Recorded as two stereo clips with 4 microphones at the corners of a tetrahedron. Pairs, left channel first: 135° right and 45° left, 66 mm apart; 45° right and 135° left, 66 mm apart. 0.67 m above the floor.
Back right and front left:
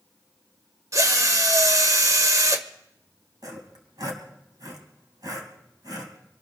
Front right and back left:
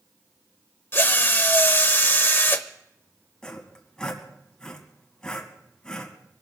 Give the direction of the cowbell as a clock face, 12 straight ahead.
No cowbell in this recording.